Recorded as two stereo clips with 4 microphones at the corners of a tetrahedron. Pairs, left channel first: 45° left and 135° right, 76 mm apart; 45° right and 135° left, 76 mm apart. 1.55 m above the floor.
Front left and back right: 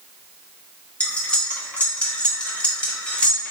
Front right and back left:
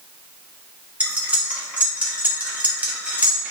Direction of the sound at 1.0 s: 95° left.